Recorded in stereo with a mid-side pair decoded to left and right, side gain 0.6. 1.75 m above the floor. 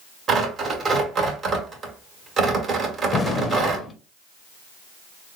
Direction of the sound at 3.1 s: 30° left.